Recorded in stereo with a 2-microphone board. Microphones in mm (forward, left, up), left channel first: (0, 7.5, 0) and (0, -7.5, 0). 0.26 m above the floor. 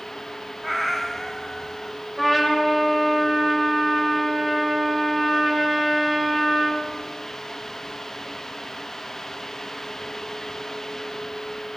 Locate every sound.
0.6 s a cat meowing: 5° left (ahead or behind), 1.8 m; by 2.0 s 35° left (ahead or behind), 1.7 m
2.2 s a trumpet: 10° left (ahead or behind), 6.5 m